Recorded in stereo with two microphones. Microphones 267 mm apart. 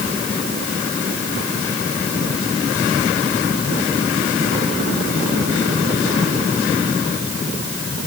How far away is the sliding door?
No sliding door in this recording.